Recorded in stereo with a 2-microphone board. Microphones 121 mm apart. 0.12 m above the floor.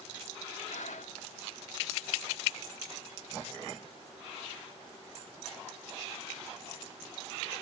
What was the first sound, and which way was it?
Breathing, 80° left.